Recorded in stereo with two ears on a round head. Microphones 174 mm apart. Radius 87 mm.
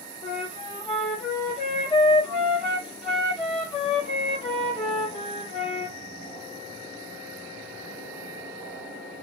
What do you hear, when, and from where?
0.2 s a flute: 25° left (ahead or behind), 1.3 m